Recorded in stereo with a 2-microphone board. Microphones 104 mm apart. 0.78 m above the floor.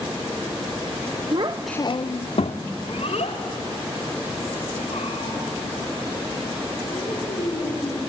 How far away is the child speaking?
About 0.7 m.